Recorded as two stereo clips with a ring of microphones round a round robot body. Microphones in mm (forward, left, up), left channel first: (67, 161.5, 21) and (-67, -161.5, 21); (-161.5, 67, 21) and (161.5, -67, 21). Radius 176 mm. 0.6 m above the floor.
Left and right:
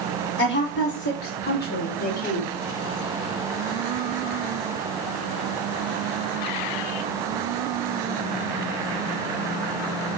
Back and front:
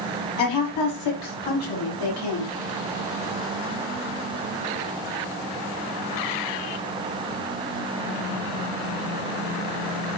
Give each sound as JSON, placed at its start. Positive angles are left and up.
{"t": 0.4, "sound": "a woman speaking", "azimuth_deg": 125, "distance_m": 4.5}